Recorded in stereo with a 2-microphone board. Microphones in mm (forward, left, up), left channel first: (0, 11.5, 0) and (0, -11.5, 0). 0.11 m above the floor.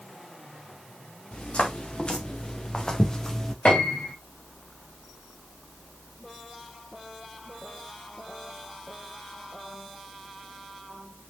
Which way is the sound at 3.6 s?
70° left (ahead or behind).